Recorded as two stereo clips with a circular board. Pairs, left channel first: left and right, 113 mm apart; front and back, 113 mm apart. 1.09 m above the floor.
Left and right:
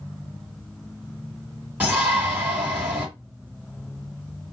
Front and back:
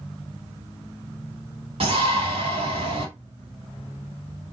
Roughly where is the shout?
Behind.